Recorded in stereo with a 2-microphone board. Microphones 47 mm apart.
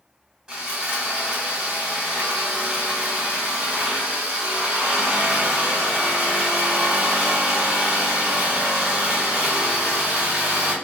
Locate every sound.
0.5 s sawing: 15° right (ahead or behind), 1.2 m